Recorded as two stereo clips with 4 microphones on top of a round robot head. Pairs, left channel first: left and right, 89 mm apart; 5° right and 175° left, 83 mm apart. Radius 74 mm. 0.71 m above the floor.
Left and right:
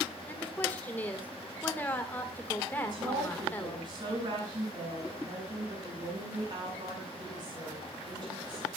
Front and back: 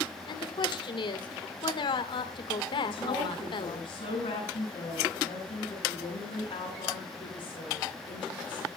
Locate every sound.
0.3 s a woman speaking: 15° left, 2 m
2.8 s a woman speaking: 40° right, 9 m